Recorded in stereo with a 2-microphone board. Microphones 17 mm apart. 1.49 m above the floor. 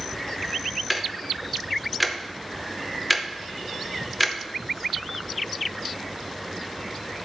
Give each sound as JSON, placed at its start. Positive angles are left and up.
{"t": 0.9, "sound": "ticking", "side_deg": 5, "distance_m": 0.7}